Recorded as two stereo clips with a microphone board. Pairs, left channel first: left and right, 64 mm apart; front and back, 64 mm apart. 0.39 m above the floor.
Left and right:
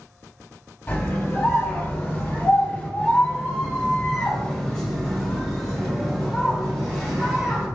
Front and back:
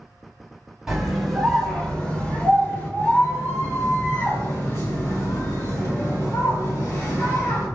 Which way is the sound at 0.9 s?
100° left.